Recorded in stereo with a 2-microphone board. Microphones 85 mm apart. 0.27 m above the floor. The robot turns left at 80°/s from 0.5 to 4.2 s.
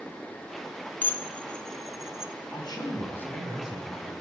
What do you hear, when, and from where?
1.0 s dishes clattering: 20° left (ahead or behind), 0.6 m; by 2.3 s 10° right (ahead or behind), 0.6 m
2.5 s a man speaking: 80° left, 2.5 m; by 4.1 s 50° right, 2.5 m